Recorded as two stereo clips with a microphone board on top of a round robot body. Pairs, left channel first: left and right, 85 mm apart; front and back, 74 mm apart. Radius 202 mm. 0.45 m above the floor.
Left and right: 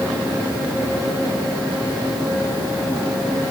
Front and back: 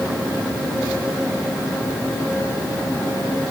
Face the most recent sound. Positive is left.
No sound to turn to.